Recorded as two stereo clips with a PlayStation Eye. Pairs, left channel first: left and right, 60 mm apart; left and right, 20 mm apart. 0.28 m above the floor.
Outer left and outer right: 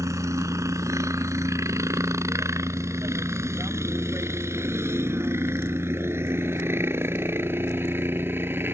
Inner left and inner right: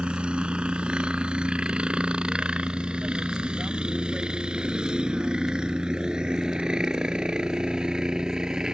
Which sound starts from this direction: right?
A helicopter, at 0.0 s.